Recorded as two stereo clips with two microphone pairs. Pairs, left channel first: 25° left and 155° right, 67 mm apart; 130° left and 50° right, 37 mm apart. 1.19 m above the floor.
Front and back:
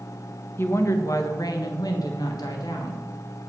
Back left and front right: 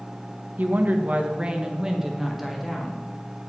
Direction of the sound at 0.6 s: 25° right.